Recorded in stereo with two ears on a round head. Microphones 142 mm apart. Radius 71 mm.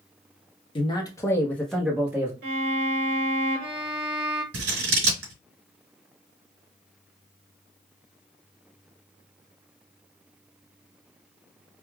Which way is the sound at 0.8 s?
30° left (ahead or behind).